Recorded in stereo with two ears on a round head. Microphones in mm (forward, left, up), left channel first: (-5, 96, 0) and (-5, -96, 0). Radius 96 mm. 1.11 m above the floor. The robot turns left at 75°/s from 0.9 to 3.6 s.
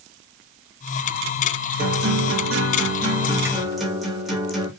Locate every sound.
1.8 s a guitar: 45° right, 2 m; by 4.7 s straight behind, 2 m